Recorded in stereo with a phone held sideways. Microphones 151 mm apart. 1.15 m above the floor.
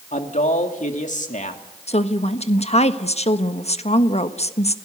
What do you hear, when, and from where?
0.1 s a man speaking: 55° left (ahead or behind), 2.5 m
1.9 s a woman speaking: 45° left (ahead or behind), 1.3 m